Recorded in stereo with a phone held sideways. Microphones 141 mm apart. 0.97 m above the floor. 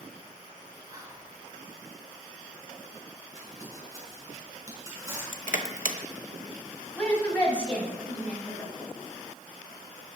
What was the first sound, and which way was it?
Whispering, 25° right (ahead or behind).